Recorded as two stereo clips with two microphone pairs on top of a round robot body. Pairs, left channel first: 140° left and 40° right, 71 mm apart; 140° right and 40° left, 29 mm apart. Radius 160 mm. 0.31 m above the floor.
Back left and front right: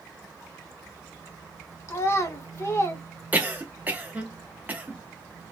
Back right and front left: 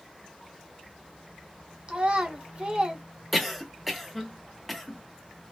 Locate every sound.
1.9 s a child speaking: 90° left, 1.2 m
3.3 s a cough: 50° right, 1.1 m